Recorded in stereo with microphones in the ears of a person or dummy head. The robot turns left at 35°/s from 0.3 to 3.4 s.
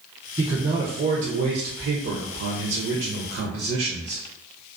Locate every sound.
0.4 s a man speaking: 25° right, 0.6 m; by 4.2 s 130° right, 0.6 m